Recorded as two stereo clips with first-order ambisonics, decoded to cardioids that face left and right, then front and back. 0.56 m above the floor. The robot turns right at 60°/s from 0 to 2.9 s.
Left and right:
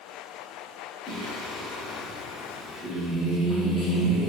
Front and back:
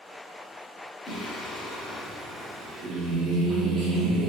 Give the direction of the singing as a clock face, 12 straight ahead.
10 o'clock.